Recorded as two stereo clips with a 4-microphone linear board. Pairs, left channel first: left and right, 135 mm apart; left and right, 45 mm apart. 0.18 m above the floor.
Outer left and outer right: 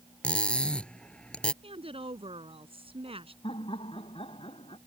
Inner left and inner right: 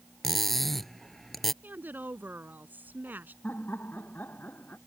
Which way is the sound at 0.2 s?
10° left (ahead or behind).